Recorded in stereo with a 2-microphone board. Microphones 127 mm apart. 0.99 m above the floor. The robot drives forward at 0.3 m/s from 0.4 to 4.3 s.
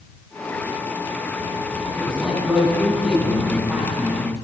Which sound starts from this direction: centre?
A man speaking, at 2.0 s.